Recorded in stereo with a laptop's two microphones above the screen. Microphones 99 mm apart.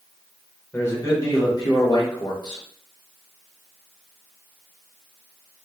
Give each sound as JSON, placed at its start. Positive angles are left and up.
{"t": 0.7, "sound": "a man speaking", "side_deg": 25, "distance_m": 1.1}